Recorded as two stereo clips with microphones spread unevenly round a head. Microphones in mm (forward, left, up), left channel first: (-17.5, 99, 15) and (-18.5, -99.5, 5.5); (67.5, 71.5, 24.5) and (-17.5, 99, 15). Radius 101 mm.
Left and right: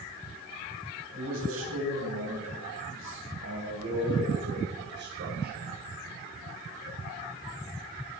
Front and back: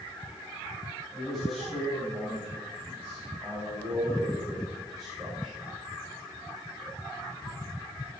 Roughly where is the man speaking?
Right.